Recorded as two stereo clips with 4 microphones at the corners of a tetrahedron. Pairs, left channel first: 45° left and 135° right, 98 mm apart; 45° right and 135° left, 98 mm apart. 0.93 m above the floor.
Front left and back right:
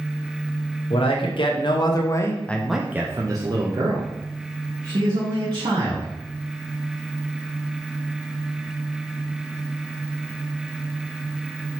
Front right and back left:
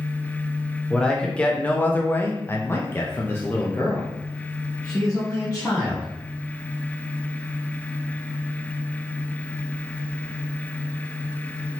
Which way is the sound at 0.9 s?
35° left.